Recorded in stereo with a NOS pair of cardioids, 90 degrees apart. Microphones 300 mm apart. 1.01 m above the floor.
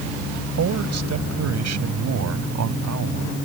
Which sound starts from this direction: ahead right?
A man speaking, at 0.6 s.